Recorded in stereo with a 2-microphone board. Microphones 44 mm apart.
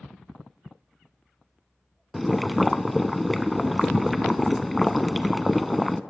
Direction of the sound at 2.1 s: Centre (ahead or behind).